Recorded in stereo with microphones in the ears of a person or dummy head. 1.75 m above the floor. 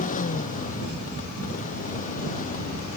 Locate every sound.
0.0 s a motorcycle: 45° left (ahead or behind)